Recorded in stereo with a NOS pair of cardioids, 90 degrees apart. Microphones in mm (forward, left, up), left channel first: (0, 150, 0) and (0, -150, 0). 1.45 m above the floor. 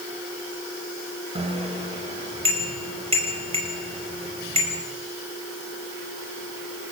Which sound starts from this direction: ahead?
A bicycle bell, at 1.4 s.